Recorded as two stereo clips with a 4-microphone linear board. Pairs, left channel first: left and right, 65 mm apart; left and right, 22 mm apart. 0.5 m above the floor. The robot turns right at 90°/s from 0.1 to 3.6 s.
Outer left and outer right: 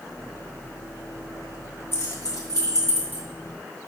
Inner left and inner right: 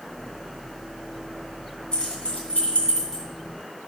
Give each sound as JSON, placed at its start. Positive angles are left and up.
{"t": 1.9, "sound": "keys jangling", "side_deg": 40, "distance_m": 2.5}